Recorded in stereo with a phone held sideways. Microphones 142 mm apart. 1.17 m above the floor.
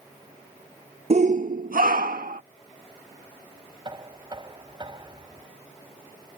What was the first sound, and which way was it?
A shout, 50° right (ahead or behind).